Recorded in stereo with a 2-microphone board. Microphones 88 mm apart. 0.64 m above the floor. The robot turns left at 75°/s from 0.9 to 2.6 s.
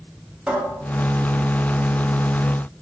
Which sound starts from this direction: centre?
A cupboard door, at 0.5 s.